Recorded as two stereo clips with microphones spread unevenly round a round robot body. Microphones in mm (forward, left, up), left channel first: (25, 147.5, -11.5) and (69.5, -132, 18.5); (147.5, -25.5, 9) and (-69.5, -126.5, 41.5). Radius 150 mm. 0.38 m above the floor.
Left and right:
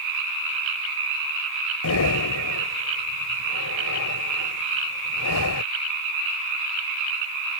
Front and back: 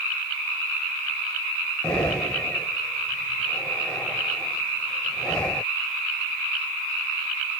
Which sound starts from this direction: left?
Breathing, at 1.8 s.